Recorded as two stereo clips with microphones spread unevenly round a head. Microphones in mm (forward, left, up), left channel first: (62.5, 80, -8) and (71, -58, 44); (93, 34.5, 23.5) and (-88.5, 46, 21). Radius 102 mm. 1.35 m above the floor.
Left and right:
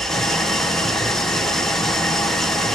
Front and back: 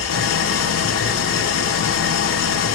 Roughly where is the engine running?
Ahead.